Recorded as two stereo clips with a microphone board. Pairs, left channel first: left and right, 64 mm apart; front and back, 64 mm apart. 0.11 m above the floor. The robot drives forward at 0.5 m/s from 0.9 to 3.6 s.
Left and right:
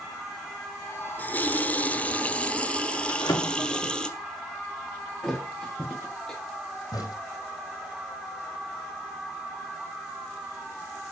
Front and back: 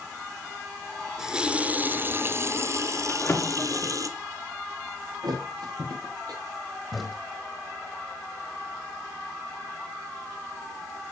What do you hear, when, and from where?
1.2 s a running tap: 110° left, 0.9 m; by 4.1 s 165° left, 1.6 m
3.1 s a drawer: 60° left, 6.5 m
5.2 s a thud: 175° left, 5 m
6.9 s a crack: 90° left, 4.5 m